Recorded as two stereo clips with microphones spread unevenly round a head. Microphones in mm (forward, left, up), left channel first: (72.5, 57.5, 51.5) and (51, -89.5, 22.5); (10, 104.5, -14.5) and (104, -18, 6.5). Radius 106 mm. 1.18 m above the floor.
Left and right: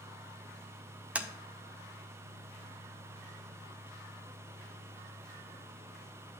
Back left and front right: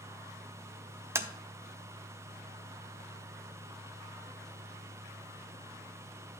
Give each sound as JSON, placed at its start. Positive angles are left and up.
{"t": 1.1, "sound": "tapping", "azimuth_deg": -5, "distance_m": 0.7}